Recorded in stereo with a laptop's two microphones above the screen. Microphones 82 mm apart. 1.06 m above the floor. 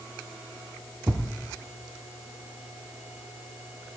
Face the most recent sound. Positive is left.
turn(degrees=-25)  # may be behind; listen again after turning